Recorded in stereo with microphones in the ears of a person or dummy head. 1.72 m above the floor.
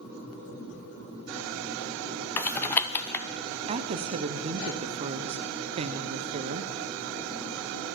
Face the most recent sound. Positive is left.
turn(degrees=-30)  # may be behind; listen again after turning